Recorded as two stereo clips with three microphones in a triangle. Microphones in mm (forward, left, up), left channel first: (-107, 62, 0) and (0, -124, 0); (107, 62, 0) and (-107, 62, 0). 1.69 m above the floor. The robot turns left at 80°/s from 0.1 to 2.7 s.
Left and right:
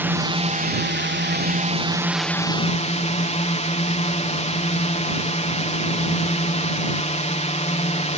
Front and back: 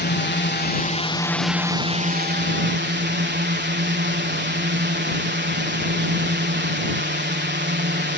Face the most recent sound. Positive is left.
turn(degrees=170)